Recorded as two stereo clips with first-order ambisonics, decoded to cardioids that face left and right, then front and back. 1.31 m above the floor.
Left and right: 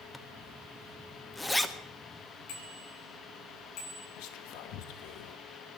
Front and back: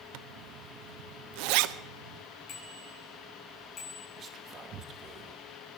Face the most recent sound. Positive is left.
turn(degrees=115)